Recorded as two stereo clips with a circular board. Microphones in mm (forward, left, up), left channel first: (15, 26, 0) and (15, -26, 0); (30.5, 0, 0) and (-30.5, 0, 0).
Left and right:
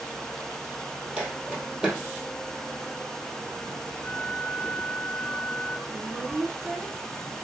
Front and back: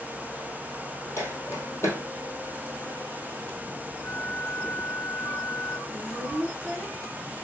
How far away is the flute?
About 0.7 m.